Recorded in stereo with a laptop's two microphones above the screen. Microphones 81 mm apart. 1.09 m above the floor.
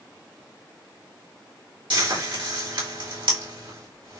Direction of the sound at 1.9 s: 80° right.